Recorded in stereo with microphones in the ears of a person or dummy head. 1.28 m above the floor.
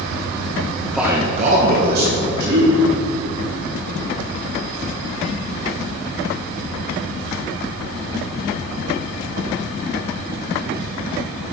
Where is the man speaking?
25° left (ahead or behind), 0.7 m; by 2.8 s 65° right (ahead or behind), 3 m.